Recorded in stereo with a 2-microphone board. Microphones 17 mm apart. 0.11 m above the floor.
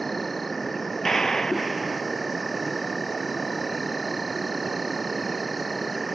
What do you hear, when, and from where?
0.0 s an insect: 10° left (ahead or behind)
1.1 s a gunshot: 30° left (ahead or behind)